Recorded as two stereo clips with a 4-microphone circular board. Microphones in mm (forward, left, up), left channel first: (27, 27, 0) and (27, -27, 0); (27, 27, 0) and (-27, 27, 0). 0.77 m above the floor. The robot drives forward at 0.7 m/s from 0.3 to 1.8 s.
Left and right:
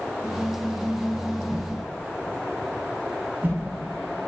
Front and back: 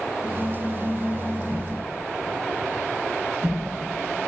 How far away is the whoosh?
About 0.8 m.